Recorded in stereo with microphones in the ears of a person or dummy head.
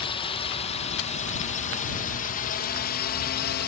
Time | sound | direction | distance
0.0 | a drone | 25° left (ahead or behind) | ?